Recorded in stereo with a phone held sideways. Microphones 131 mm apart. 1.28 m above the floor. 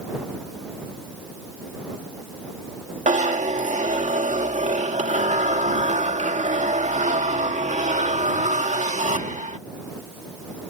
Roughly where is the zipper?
Right.